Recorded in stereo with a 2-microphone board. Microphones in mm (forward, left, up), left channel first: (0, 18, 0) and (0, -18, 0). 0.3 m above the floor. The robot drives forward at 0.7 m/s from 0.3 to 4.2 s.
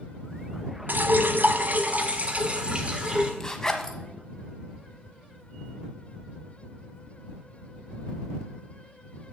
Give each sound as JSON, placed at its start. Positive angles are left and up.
{"t": 0.9, "sound": "dripping", "side_deg": -65, "distance_m": 0.8}
{"t": 3.4, "sound": "a zipper", "side_deg": 20, "distance_m": 1.1}